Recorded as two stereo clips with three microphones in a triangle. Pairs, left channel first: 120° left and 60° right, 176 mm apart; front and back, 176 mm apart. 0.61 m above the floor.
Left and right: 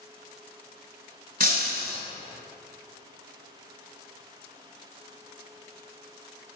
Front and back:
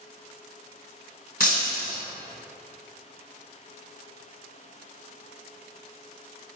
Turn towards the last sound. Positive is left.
turn(degrees=-30)